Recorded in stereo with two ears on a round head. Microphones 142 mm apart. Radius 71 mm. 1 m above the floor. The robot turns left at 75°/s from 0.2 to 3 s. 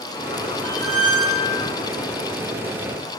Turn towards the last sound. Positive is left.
turn(degrees=0)